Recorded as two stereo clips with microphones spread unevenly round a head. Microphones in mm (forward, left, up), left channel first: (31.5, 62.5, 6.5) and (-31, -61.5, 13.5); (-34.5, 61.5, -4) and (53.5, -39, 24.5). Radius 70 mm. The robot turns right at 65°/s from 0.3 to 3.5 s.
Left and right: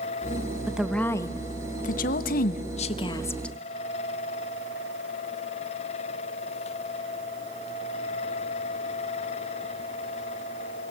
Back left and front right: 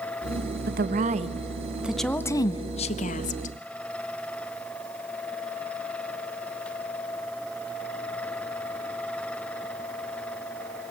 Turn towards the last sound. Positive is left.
turn(degrees=145)